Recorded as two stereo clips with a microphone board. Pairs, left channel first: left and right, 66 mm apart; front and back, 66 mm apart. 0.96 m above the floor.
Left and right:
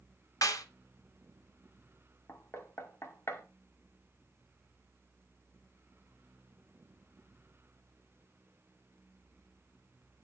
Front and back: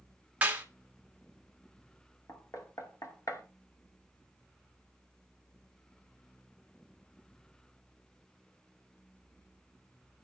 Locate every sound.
0.4 s a clap: 110° left, 1.5 m
2.3 s knocking: 35° left, 1.9 m